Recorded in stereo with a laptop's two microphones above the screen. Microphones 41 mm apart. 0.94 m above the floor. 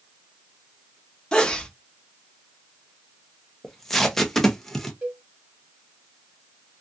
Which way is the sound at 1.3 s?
20° left (ahead or behind).